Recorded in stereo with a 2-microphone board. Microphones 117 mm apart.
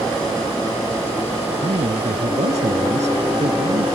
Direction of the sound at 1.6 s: 80° right.